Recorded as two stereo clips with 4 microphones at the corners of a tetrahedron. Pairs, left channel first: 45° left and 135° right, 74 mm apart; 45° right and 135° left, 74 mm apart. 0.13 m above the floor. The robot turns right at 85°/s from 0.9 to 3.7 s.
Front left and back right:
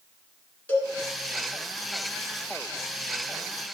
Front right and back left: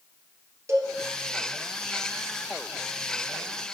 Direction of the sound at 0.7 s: 105° left.